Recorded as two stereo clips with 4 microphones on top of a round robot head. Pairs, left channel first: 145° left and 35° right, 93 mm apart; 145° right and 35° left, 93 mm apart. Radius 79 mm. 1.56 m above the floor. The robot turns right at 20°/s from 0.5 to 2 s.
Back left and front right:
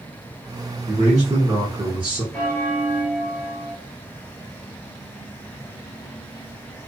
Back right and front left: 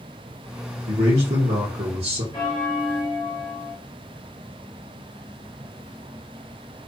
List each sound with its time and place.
0.9 s a man speaking: 15° left, 1.5 m; by 2.2 s 35° left, 1.5 m
2.3 s a bell: 150° right, 0.8 m